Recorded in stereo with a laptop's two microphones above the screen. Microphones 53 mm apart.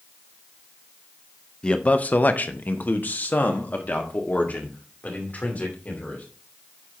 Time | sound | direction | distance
1.6 | a man speaking | 20° left (ahead or behind) | 0.6 m